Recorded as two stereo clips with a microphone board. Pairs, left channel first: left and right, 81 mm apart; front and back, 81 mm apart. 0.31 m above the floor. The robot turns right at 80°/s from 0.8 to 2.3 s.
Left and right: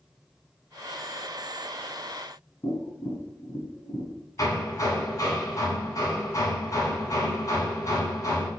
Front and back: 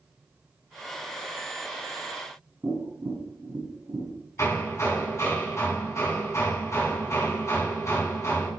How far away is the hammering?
About 3 m.